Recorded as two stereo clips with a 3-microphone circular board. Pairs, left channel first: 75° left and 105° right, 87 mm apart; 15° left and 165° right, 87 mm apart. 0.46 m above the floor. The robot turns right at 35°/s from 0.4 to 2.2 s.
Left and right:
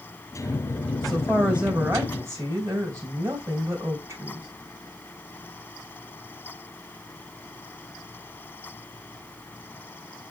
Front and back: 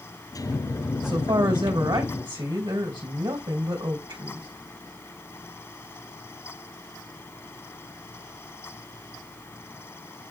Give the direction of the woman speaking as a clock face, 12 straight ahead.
7 o'clock.